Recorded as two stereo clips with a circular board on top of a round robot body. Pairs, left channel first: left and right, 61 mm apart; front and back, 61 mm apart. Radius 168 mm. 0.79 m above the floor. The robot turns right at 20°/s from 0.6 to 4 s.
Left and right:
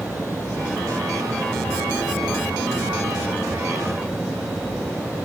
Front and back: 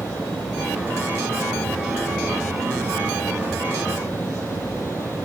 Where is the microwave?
I don't hear a microwave.